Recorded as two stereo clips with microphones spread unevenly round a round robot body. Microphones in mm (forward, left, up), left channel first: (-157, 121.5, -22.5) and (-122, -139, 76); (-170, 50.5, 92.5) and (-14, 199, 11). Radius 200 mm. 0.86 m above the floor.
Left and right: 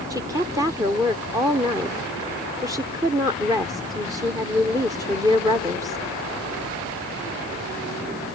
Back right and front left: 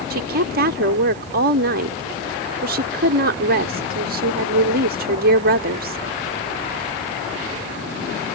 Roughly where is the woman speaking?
Ahead.